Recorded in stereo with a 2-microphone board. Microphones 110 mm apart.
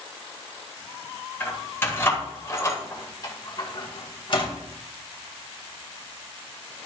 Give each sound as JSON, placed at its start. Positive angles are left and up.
{"t": 1.4, "sound": "keys jangling", "side_deg": 15, "distance_m": 3.5}